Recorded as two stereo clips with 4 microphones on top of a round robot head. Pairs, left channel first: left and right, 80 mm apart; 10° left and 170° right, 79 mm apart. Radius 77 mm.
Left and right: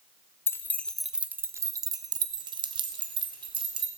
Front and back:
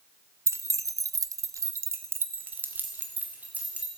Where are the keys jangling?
140° left, 0.8 m; by 3.9 s 95° right, 2.5 m.